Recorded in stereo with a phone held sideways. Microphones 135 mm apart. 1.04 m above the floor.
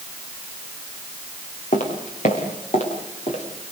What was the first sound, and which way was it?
Footsteps, 65° left (ahead or behind).